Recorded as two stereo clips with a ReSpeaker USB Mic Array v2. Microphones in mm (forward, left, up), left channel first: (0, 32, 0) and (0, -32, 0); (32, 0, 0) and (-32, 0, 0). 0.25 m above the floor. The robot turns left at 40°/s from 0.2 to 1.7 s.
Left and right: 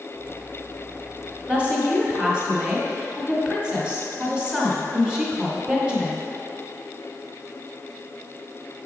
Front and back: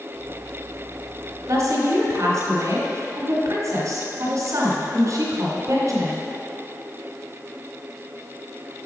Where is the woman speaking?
155° right, 1.7 m; by 6.3 s 165° right, 1.7 m.